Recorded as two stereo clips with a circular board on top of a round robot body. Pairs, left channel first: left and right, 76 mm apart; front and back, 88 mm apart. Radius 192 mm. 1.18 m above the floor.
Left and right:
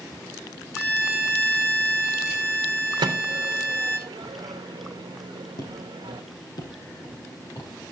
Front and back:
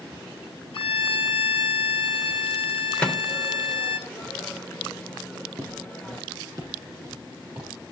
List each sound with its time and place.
0.7 s a violin: 25° left, 1.7 m
3.0 s a microwave: 80° right, 0.6 m
5.6 s footsteps: 120° left, 5 m; by 7.7 s 105° left, 2.5 m